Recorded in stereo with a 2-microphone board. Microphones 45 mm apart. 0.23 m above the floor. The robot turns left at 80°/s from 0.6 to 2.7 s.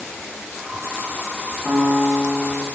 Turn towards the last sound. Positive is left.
turn(degrees=-165)